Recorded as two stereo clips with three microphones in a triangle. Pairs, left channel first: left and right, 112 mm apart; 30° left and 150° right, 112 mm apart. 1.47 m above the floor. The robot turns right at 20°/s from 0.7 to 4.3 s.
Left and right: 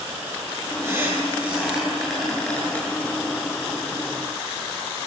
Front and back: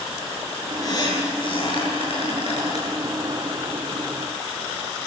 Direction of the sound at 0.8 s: 25° right.